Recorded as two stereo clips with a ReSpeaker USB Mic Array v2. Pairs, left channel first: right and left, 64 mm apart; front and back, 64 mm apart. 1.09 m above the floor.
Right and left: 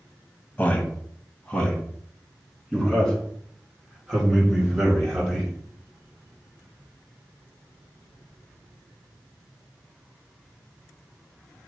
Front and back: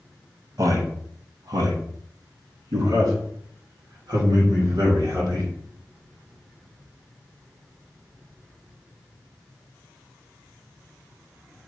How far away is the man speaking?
About 1.2 m.